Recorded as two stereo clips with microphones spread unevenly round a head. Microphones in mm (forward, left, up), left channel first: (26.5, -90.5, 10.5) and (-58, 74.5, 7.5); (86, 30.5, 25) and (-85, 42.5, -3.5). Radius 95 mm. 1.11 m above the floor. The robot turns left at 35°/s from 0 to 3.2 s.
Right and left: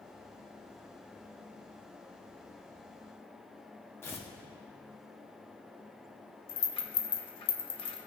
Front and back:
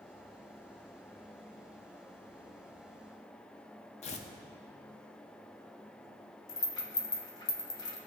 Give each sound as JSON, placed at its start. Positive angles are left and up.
{"t": 4.0, "sound": "tearing paper", "azimuth_deg": 10, "distance_m": 0.6}
{"t": 6.5, "sound": "a rattle", "azimuth_deg": -30, "distance_m": 0.8}